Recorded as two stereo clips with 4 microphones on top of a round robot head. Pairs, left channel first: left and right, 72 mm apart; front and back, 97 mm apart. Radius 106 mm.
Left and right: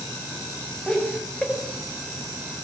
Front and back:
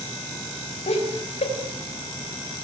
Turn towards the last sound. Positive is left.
turn(degrees=5)